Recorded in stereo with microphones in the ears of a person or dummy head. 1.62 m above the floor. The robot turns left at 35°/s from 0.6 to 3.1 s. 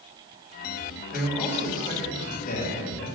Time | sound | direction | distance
1.1 | a man speaking | straight behind | 2.5 m